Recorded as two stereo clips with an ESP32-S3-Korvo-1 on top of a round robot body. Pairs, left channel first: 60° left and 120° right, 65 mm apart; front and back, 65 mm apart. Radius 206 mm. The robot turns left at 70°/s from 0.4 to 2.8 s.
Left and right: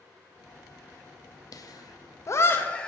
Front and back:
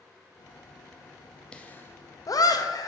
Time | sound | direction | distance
1.5 | laughter | 75° left | 1.2 m